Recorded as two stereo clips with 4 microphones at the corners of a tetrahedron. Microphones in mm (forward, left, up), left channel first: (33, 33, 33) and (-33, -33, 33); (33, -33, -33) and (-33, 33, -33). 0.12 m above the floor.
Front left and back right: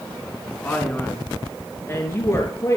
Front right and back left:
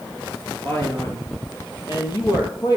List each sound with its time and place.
0.6 s a man speaking: 20° right, 1.8 m; by 2.8 s 10° right, 3.5 m